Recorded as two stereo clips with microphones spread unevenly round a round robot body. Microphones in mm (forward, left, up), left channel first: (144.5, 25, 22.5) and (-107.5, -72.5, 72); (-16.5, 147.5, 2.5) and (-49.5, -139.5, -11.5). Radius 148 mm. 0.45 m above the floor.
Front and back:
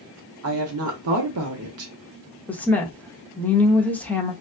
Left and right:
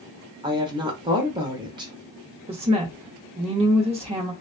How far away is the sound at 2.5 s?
About 0.9 m.